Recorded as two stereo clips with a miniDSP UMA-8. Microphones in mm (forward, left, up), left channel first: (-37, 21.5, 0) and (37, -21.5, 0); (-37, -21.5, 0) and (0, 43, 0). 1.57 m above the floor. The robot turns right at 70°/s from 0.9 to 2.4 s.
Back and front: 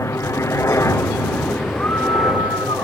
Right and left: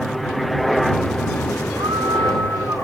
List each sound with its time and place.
0.0 s a helicopter: 150° left; by 2.9 s 105° right
1.8 s a scream: 75° left; by 2.9 s 120° left